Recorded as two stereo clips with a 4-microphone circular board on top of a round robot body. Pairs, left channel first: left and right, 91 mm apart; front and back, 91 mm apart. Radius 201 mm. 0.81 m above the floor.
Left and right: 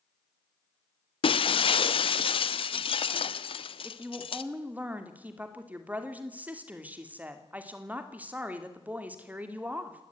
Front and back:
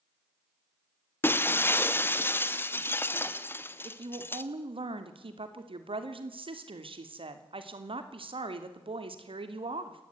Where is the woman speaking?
165° right, 3 m.